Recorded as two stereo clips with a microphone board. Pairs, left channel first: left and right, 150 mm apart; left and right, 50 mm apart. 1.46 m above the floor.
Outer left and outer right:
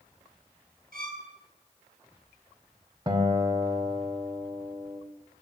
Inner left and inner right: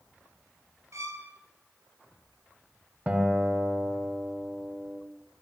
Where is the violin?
70° right (ahead or behind), 4.5 m.